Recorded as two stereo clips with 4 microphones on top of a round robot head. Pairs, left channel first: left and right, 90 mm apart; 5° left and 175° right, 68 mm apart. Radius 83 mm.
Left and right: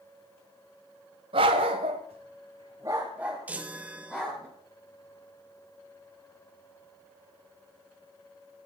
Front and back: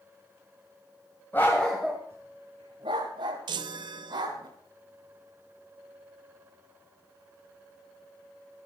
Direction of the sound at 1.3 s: 65° right.